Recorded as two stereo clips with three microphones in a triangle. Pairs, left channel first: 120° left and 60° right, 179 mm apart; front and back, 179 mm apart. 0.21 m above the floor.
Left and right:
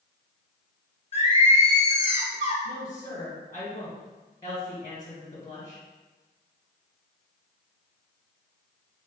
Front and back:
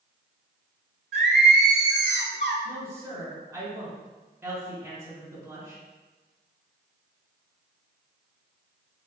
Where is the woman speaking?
130° left, 1.4 m.